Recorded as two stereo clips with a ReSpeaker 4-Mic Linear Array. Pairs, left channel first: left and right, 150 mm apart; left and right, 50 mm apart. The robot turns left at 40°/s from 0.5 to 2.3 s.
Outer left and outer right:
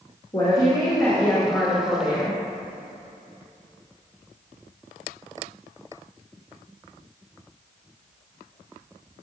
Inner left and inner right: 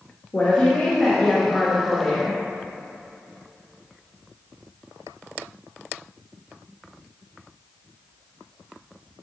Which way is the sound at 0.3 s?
50° left.